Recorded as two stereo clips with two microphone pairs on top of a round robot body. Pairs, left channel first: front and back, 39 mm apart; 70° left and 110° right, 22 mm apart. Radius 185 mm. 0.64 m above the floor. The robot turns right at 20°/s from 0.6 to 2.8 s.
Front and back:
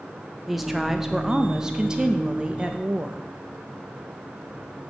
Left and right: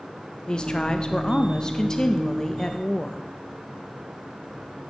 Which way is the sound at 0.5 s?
100° left.